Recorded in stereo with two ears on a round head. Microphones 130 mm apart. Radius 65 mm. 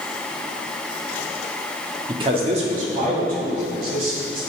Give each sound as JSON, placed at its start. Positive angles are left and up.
{"t": 2.1, "sound": "a man speaking", "side_deg": -30, "distance_m": 1.1}